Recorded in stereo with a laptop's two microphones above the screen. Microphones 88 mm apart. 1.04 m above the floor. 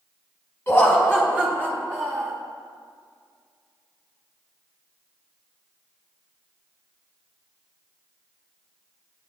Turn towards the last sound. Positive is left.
turn(degrees=-35)  # may be behind; listen again after turning